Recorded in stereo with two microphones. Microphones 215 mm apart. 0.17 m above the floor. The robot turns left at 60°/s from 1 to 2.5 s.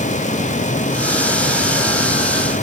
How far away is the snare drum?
I don't hear a snare drum.